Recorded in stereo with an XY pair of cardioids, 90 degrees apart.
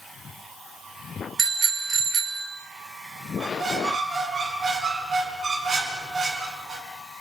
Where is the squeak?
50° right, 5.5 m.